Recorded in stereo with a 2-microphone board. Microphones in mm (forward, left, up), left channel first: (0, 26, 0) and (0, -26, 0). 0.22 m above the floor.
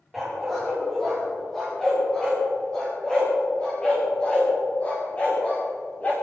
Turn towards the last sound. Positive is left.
turn(degrees=30)  # may be behind; listen again after turning